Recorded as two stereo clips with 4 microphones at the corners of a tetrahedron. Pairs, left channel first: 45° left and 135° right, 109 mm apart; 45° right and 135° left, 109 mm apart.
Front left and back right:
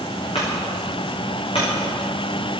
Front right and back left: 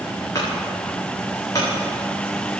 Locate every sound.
0.3 s a clunk: 10° left, 7.5 m